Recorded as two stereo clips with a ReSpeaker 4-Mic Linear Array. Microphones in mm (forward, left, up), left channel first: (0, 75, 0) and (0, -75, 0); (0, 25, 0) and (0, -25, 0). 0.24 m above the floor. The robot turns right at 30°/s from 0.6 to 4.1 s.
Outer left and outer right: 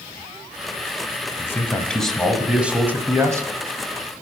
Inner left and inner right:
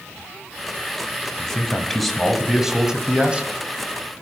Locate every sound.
1.4 s a man speaking: 155° left, 1.2 m; by 3.5 s 140° right, 1.2 m